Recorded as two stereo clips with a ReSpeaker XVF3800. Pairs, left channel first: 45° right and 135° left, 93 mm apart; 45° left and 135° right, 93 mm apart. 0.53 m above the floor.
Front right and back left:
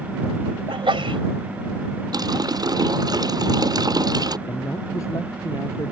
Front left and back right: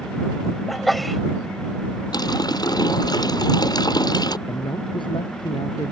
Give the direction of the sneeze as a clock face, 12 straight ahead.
8 o'clock.